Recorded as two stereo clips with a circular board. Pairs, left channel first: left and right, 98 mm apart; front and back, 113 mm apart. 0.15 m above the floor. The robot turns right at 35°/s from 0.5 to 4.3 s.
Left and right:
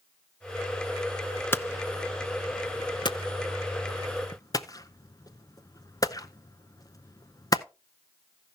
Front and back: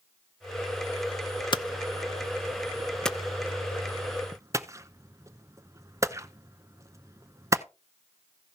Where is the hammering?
30° left, 0.6 m; by 7.6 s 125° left, 0.6 m.